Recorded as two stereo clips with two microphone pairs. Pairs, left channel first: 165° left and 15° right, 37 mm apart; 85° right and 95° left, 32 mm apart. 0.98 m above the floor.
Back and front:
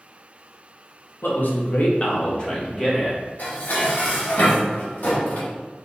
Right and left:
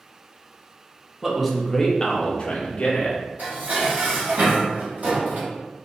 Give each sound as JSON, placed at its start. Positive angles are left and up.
{"t": 1.2, "sound": "a man speaking", "azimuth_deg": 175, "distance_m": 0.7}
{"t": 3.4, "sound": "dishes clattering", "azimuth_deg": 125, "distance_m": 1.0}